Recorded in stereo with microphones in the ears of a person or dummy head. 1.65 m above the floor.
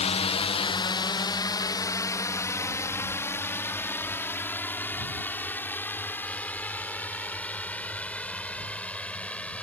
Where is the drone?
30° left (ahead or behind); by 9.6 s 5° left (ahead or behind).